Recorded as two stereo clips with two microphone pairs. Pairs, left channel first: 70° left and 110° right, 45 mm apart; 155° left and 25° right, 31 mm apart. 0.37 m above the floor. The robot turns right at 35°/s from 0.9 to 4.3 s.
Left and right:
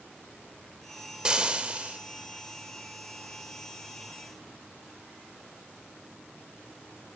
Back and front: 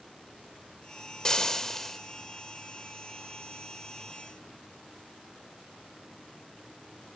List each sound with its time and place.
1.2 s frying: 165° right, 0.6 m; by 2.0 s 140° right, 0.6 m